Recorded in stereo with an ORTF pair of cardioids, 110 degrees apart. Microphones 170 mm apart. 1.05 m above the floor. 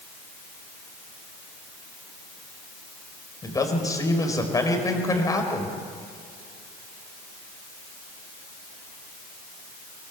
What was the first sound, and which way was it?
A man speaking, 20° left.